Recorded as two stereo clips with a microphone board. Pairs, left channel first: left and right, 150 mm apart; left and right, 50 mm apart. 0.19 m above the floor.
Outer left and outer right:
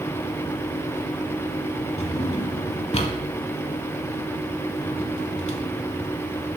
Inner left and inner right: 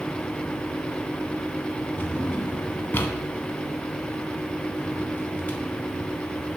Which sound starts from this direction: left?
A drawer, at 2.0 s.